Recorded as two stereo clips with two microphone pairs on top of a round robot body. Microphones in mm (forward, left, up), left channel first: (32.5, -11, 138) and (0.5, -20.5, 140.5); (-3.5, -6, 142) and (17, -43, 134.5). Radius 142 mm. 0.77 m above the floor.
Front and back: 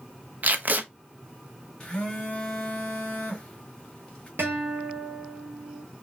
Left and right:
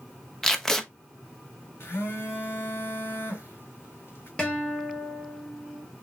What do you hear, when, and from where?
0.4 s tape being pulled: 155° right, 1.1 m
1.8 s a phone buzzing: 90° left, 0.7 m
4.4 s a guitar: 170° right, 1.3 m